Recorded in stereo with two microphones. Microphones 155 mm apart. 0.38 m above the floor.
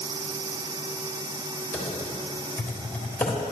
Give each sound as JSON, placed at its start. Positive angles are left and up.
{"t": 1.7, "sound": "typing on a keyboard", "side_deg": 10, "distance_m": 1.5}